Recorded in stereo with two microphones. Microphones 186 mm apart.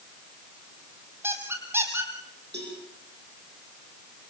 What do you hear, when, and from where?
1.2 s a squeak: 15° right (ahead or behind), 3 m
2.5 s a cowbell: 70° right (ahead or behind), 6.5 m